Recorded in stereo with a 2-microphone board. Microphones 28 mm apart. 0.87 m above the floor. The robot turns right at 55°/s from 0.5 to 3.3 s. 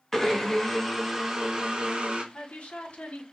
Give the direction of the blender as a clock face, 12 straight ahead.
7 o'clock.